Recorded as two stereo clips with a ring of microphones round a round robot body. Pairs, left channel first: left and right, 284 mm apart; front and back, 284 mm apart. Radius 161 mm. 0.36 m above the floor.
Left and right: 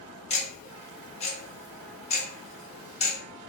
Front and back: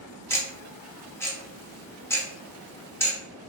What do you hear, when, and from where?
0.3 s ticking: 70° left, 1.0 m